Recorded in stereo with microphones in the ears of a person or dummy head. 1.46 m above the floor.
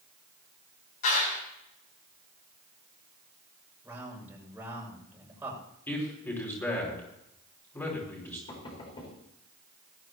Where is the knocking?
30° left (ahead or behind), 4.5 m.